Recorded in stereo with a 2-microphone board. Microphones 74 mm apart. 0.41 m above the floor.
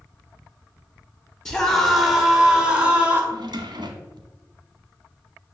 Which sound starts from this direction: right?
A drawer, at 3.3 s.